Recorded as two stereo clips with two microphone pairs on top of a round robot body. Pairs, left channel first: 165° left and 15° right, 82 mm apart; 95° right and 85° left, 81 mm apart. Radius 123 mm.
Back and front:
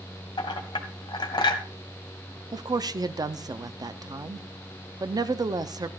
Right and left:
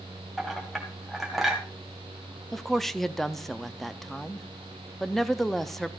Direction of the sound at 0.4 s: 175° left.